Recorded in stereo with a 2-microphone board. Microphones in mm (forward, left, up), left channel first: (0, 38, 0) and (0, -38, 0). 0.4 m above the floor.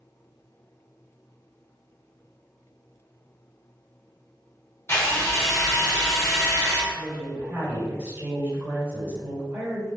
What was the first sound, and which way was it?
A drill, 35° left (ahead or behind).